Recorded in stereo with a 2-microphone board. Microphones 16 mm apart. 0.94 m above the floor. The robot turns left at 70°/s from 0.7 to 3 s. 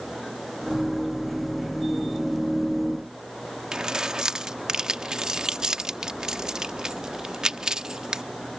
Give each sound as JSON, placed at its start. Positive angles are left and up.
{"t": 3.7, "sound": "keys jangling", "side_deg": -50}